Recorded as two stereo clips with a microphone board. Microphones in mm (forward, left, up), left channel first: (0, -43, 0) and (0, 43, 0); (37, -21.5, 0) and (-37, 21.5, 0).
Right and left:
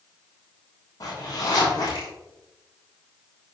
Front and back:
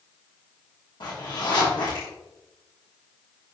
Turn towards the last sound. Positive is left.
turn(degrees=-55)